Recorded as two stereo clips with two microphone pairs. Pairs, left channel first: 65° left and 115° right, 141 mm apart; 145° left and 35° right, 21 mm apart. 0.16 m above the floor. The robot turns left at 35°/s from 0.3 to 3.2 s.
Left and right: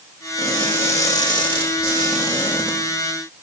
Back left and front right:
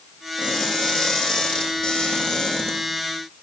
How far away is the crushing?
About 5 m.